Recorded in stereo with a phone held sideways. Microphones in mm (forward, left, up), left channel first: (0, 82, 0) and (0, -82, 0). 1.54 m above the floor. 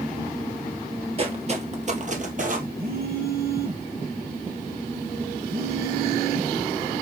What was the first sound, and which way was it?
Footsteps, 35° right (ahead or behind).